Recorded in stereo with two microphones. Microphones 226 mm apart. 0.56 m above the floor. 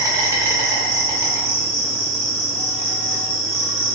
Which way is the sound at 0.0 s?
15° right (ahead or behind).